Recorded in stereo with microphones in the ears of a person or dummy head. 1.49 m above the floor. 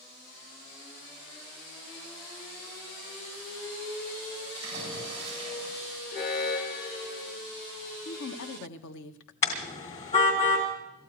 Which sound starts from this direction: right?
A splash, at 4.5 s.